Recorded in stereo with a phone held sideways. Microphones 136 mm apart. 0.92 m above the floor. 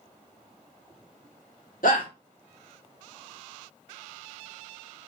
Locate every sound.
1.8 s a shout: 75° left (ahead or behind), 1.7 m